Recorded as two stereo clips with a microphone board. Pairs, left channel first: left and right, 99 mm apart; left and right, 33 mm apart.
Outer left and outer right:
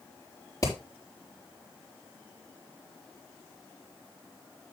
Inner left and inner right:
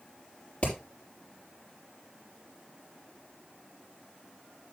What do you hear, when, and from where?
0.6 s hammering: 35° left (ahead or behind), 6 m